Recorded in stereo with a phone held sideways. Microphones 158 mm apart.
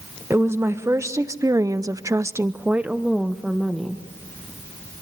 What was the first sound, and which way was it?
A woman speaking, 15° right (ahead or behind).